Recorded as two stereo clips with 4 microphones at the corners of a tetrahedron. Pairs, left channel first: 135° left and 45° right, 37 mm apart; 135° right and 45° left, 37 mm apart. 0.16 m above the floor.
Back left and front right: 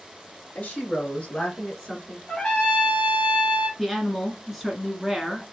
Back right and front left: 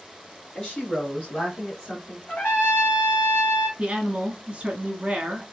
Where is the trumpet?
160° right, 2 m.